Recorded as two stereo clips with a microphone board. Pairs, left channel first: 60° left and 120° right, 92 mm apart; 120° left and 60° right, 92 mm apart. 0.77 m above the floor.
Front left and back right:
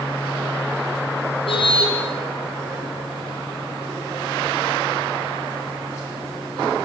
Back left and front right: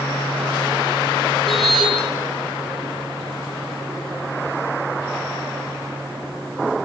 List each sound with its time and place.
1.5 s a car horn: 35° left, 8 m